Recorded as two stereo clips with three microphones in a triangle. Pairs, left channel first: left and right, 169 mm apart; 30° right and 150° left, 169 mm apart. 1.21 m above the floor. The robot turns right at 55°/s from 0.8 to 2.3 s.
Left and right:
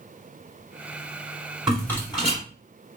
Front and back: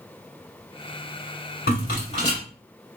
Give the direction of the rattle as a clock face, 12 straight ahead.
12 o'clock.